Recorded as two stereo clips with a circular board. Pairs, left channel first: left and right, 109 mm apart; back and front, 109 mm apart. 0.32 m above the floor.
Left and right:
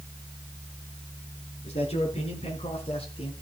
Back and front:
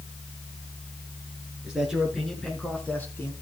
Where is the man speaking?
80° left, 4.5 m; by 3.3 s 115° left, 3.5 m.